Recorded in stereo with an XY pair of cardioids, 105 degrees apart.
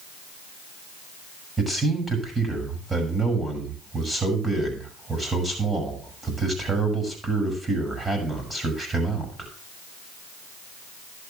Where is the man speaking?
20° right, 8 m.